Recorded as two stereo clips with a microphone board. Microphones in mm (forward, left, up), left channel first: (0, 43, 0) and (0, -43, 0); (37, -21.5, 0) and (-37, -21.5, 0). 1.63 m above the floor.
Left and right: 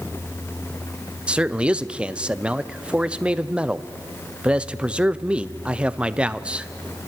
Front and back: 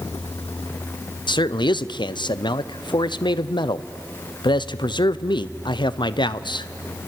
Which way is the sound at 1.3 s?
10° right.